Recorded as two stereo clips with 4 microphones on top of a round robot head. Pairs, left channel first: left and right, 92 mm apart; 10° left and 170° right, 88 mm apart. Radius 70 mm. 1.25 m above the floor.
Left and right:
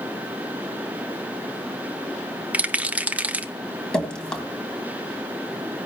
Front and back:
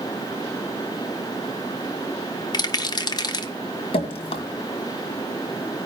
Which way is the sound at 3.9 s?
10° left.